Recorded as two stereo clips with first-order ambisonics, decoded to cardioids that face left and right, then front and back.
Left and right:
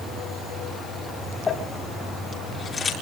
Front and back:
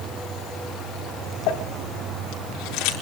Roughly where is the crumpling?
Ahead.